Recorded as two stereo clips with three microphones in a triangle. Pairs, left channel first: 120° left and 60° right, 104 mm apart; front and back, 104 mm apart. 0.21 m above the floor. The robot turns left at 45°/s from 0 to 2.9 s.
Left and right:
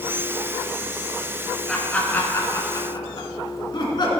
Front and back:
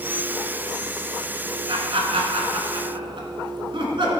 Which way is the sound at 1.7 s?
150° right.